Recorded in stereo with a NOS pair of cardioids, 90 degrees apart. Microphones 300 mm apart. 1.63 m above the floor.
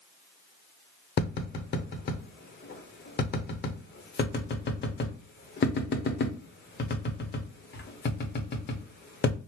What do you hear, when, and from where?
1.2 s tapping: 35° left, 0.9 m